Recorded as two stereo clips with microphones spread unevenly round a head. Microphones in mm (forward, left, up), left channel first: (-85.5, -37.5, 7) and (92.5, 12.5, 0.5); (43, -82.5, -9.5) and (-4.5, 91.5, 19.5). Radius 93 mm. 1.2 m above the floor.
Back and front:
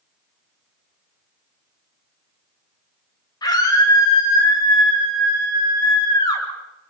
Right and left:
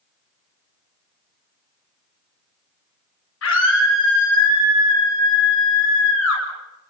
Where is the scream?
95° right, 7.5 m.